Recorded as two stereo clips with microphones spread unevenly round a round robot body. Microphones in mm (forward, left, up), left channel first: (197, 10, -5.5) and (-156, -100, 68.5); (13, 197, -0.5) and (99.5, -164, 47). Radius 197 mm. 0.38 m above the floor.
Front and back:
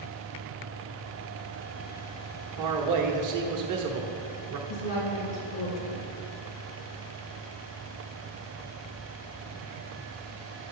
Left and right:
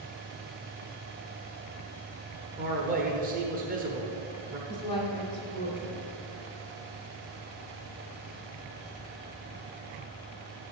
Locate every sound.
2.6 s a man speaking: 145° right, 1.2 m
4.7 s a woman speaking: 25° left, 3.5 m